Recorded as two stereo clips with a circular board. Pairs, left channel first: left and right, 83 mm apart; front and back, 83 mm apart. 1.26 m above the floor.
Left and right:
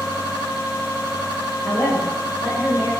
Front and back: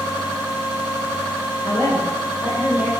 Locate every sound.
1.6 s a woman speaking: 75° left, 4 m